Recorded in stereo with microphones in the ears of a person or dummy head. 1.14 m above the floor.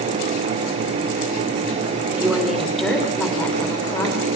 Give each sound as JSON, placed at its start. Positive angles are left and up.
{"t": 2.1, "sound": "a woman speaking", "side_deg": -5, "distance_m": 3.5}